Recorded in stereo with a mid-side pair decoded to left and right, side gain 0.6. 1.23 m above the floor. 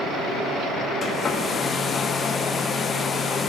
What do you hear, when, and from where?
1.0 s a hair dryer: 35° left, 0.8 m